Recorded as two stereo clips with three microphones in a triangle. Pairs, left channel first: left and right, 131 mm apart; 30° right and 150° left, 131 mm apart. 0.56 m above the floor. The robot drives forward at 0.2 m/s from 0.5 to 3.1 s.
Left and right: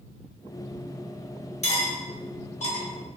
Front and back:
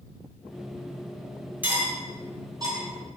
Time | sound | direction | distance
1.6 | cutlery clinking | 75° left | 0.7 m